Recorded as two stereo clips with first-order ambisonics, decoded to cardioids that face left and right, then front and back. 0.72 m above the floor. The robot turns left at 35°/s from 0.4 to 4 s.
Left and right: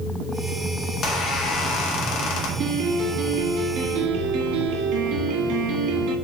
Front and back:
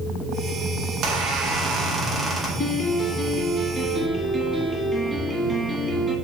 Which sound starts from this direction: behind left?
A squeak, at 0.9 s.